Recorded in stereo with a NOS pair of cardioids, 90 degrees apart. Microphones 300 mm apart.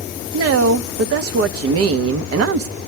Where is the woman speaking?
50° right, 1.0 m.